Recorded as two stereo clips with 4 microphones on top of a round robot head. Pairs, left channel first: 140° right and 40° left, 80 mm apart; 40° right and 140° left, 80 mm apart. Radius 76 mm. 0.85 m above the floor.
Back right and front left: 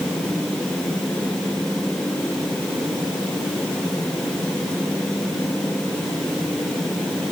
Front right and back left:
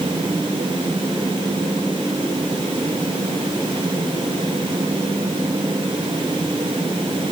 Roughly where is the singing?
I don't hear singing.